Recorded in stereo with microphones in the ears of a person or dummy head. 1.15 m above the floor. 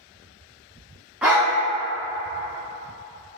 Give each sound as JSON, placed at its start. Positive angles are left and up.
{"t": 1.2, "sound": "a dog barking", "side_deg": -5, "distance_m": 0.7}